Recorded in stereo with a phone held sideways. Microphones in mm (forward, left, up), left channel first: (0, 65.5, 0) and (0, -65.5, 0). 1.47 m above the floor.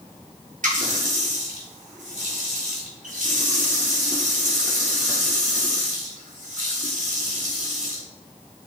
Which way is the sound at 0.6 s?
80° right.